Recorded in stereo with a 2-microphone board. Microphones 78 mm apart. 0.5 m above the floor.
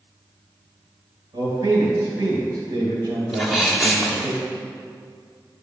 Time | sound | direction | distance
1.3 | a man speaking | 60° right (ahead or behind) | 2.5 m
3.3 | a sneeze | centre (ahead or behind) | 1.3 m